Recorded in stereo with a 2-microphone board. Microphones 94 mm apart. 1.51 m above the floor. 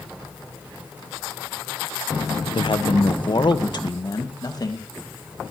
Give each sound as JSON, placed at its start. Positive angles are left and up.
{"t": 2.5, "sound": "a man speaking", "side_deg": 65, "distance_m": 1.1}